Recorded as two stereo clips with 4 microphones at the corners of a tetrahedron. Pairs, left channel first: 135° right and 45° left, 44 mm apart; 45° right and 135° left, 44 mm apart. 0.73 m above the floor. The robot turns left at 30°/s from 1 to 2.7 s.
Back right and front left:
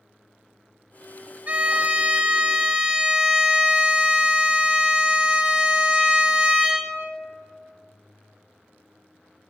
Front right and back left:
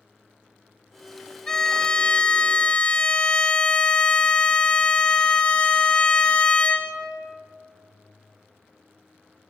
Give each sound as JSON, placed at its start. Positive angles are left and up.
{"t": 1.5, "sound": "a violin", "azimuth_deg": 20, "distance_m": 0.7}